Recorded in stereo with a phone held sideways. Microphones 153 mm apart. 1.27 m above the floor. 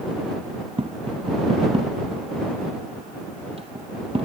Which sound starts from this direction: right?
Tapping, at 0.8 s.